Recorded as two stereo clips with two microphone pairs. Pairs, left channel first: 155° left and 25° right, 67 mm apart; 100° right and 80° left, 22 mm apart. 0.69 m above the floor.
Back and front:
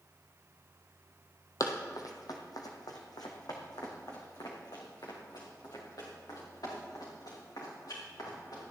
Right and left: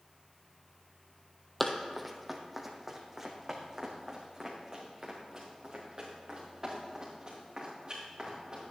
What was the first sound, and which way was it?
Running footsteps, straight behind.